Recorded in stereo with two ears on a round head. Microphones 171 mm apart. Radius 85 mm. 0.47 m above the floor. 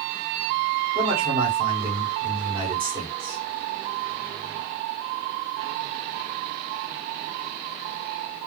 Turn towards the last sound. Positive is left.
turn(degrees=-25)  # may be behind; listen again after turning